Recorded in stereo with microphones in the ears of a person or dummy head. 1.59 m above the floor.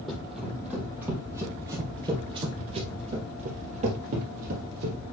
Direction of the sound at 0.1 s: Centre (ahead or behind).